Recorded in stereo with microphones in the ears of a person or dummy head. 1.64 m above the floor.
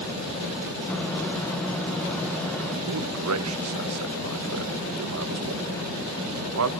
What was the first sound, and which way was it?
A microwave, 15° left (ahead or behind).